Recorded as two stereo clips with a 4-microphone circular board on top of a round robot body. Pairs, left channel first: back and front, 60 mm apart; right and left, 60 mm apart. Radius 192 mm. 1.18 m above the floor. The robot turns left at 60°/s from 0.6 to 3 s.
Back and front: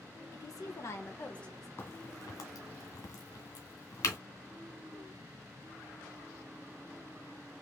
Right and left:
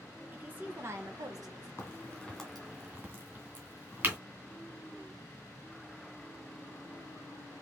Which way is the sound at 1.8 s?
135° right.